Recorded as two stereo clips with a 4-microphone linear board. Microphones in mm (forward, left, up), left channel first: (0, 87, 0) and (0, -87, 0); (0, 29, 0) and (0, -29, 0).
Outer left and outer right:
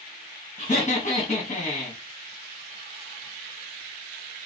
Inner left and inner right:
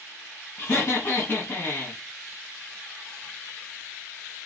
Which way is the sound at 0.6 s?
40° left (ahead or behind).